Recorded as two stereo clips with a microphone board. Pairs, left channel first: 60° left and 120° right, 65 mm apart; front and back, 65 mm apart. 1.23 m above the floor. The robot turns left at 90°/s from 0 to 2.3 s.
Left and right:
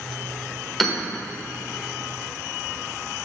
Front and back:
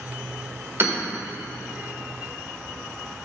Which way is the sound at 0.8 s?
150° left.